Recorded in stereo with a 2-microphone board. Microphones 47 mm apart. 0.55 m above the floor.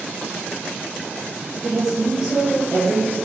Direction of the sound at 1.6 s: 25° right (ahead or behind).